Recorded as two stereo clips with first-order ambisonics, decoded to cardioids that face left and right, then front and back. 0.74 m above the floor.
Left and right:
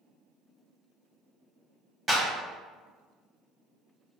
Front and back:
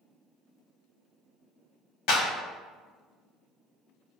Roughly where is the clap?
Ahead.